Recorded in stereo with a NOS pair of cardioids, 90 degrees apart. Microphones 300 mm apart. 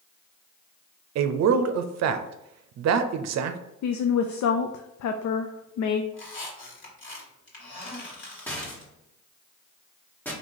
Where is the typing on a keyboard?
No typing on a keyboard in this recording.